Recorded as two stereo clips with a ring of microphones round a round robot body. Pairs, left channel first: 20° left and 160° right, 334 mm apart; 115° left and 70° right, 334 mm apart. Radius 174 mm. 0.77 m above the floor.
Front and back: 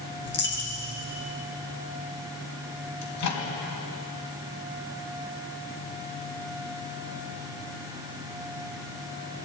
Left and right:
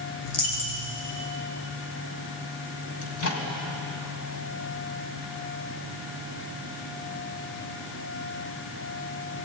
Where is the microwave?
65° left, 4 m.